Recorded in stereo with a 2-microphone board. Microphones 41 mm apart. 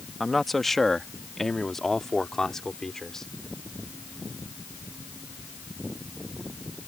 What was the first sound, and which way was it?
A man speaking, centre (ahead or behind).